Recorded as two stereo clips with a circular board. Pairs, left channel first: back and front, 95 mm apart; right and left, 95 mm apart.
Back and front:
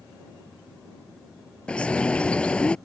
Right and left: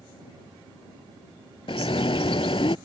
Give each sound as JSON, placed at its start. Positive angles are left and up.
{"t": 1.7, "sound": "a bird", "azimuth_deg": -100}